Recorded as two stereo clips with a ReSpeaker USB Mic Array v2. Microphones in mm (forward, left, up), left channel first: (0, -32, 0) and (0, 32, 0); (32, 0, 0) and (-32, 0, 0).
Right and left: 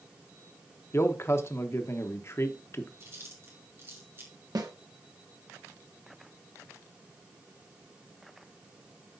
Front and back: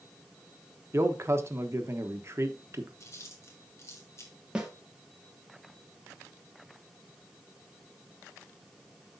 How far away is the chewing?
About 3 m.